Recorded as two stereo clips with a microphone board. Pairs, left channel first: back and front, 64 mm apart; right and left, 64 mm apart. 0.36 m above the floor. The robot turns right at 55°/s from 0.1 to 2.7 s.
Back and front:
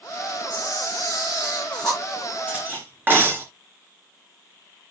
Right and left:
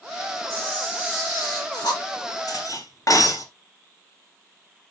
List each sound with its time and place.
0.5 s a camera shutter: 175° right, 5.5 m; by 2.0 s 90° right, 5.5 m
2.5 s cutlery clinking: 70° right, 3 m; by 3.5 s 60° right, 3 m